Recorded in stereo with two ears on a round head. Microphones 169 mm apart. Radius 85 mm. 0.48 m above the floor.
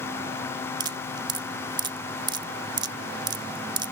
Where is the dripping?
20° right (ahead or behind).